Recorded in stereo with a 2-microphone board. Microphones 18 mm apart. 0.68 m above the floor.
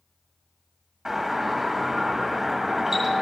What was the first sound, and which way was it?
A doorbell, 15° right (ahead or behind).